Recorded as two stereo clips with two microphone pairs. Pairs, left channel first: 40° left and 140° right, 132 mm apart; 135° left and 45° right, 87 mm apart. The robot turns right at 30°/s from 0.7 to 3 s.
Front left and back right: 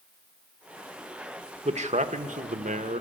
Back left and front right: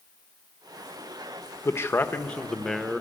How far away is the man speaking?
About 0.9 m.